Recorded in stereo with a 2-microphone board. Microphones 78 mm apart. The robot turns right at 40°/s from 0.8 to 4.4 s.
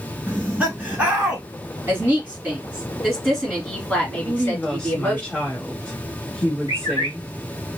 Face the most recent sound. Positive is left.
turn(degrees=70)  # may be behind; listen again after turning